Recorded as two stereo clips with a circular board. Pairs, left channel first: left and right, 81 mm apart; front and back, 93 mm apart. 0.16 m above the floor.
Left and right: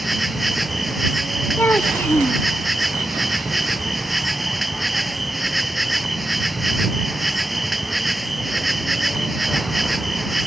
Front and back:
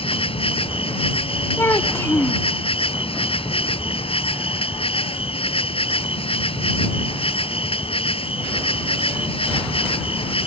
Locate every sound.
0.0 s an insect: straight ahead
1.6 s a child speaking: 40° left